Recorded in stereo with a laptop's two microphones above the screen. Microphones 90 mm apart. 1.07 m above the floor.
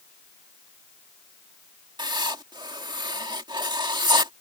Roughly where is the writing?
Right.